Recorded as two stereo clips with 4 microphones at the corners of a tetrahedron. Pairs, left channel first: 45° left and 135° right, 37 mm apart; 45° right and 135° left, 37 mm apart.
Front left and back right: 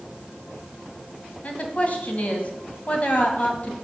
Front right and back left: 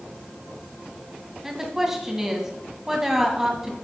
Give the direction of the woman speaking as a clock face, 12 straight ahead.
10 o'clock.